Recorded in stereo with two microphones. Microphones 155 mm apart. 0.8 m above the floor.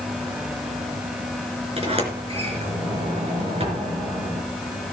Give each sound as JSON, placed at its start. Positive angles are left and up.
{"t": 1.8, "sound": "a sliding door", "side_deg": -40, "distance_m": 4.0}